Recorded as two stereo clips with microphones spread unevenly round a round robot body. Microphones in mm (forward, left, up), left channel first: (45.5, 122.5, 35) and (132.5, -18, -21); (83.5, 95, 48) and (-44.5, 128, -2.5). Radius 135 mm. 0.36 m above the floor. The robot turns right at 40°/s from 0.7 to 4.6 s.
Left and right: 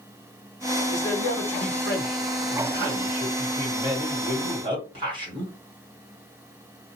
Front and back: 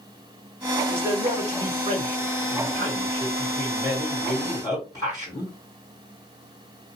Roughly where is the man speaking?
Behind left.